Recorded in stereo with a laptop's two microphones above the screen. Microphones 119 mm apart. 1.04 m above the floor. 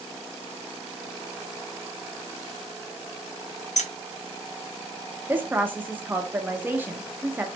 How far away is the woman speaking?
About 0.9 m.